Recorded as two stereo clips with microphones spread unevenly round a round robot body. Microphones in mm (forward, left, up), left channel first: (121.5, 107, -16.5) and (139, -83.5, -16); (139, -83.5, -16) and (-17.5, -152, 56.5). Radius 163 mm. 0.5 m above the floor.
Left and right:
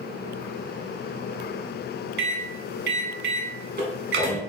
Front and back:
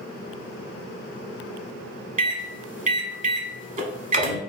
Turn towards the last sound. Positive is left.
turn(degrees=-100)